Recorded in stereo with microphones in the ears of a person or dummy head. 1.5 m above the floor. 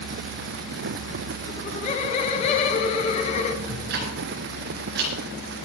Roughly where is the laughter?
Left.